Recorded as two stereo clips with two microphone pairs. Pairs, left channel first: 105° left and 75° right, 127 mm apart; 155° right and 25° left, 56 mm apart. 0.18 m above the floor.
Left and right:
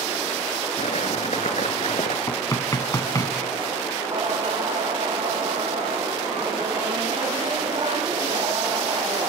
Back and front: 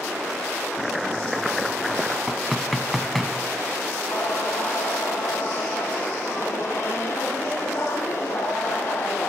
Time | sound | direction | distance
0.8 | chopping | 115° left | 1.9 m
2.3 | knocking | 115° left | 1.4 m
4.1 | singing | 120° right | 6 m